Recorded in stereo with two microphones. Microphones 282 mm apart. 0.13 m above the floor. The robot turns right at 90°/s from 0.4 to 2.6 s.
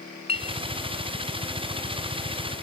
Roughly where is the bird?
I don't hear a bird.